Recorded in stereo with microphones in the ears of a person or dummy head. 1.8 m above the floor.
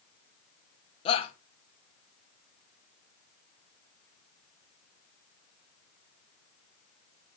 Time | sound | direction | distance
1.1 | a shout | 30° left (ahead or behind) | 1.7 m